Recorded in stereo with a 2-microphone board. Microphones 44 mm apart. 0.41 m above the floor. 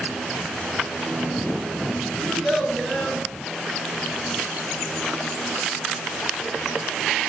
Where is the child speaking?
5° left (ahead or behind), 3.5 m.